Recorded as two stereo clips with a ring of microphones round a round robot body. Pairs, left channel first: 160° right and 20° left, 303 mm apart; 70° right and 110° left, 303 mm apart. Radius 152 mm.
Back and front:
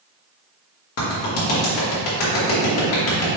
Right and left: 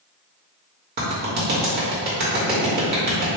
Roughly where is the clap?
Behind.